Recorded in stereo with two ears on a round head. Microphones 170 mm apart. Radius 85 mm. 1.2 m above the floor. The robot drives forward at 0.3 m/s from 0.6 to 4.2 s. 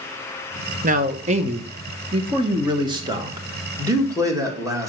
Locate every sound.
0.8 s a man speaking: 45° right (ahead or behind), 0.7 m; by 4.9 s 20° right (ahead or behind), 1.5 m